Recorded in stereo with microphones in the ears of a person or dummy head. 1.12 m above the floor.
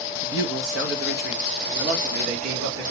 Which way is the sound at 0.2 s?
60° right (ahead or behind).